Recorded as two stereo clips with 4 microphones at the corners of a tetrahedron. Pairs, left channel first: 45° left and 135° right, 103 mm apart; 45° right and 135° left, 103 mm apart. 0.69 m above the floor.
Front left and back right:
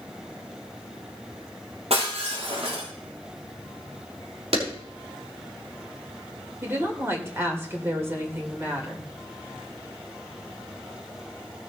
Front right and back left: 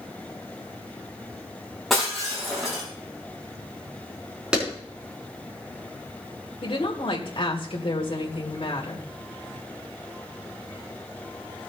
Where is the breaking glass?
135° right, 7 m.